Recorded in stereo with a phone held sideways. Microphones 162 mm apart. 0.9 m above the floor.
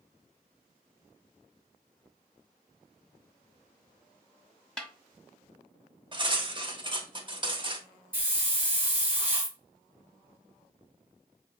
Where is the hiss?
10° right (ahead or behind), 1.5 m.